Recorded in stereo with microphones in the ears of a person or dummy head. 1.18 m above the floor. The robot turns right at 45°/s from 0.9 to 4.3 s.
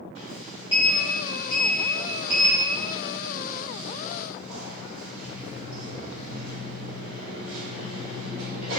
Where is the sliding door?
150° left, 1.8 m; by 8.8 s 55° right, 1.8 m.